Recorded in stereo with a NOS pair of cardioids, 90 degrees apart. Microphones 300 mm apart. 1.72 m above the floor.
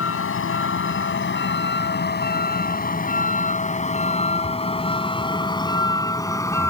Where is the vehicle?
45° left; by 6.7 s 10° left.